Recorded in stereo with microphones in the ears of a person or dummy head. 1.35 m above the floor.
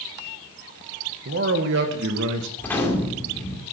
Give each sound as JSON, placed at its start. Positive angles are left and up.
{"t": 1.2, "sound": "a man speaking", "side_deg": -55, "distance_m": 1.7}
{"t": 2.6, "sound": "a gunshot", "side_deg": 10, "distance_m": 2.5}